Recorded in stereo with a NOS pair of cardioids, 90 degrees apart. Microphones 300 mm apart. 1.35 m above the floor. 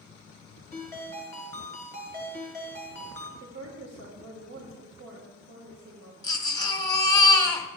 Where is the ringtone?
10° left, 3.5 m.